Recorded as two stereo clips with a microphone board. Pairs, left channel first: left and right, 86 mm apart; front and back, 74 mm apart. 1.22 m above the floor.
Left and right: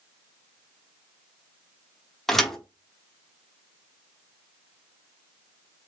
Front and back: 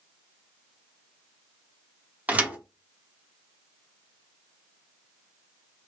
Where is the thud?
170° left, 0.8 m.